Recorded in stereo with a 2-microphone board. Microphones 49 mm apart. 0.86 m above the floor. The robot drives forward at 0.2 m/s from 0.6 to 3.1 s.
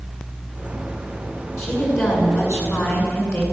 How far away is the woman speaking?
About 9.5 m.